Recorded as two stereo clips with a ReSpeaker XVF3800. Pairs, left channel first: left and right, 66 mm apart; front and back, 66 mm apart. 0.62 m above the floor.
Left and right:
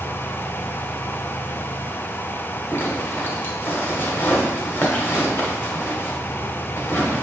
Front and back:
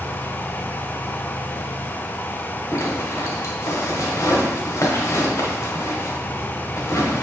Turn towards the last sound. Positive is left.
turn(degrees=35)